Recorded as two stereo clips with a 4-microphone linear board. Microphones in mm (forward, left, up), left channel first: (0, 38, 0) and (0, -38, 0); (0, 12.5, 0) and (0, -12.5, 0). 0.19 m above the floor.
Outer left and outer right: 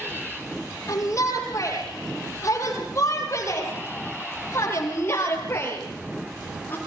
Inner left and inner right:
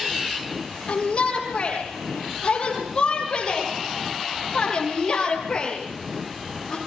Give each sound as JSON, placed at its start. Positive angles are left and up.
{"t": 0.9, "sound": "a shout", "side_deg": 40, "distance_m": 7.5}